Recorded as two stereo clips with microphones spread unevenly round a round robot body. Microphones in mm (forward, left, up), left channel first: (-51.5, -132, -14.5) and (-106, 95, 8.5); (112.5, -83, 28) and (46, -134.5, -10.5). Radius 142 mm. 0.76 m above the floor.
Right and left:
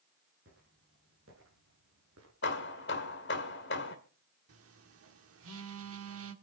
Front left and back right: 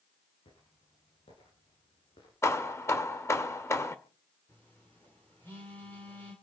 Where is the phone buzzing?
125° left, 1.7 m.